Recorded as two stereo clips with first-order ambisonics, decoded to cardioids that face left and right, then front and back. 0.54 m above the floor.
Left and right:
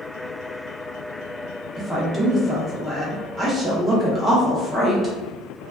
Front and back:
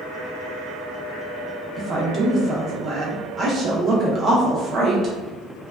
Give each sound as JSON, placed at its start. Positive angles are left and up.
{"t": 1.8, "sound": "a woman speaking", "azimuth_deg": -160, "distance_m": 0.6}